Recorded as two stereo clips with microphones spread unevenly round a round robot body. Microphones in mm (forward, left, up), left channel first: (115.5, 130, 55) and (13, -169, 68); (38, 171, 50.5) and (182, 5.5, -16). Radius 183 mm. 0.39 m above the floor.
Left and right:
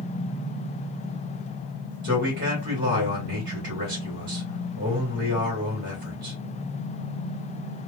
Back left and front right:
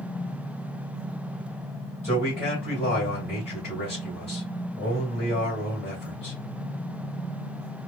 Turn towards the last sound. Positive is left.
turn(degrees=-155)